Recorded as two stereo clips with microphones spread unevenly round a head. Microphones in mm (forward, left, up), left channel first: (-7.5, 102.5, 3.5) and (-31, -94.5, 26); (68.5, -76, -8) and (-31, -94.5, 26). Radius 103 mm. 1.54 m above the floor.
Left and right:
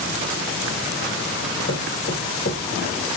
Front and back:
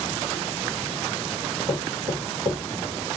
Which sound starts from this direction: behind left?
Knocking, at 1.7 s.